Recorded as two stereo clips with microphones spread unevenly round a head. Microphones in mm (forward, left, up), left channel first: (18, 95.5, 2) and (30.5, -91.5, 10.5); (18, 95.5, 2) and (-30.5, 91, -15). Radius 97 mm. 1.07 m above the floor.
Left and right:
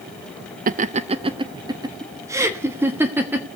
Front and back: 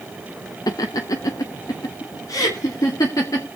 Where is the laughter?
40° right, 0.6 m; by 3.5 s 5° right, 2 m.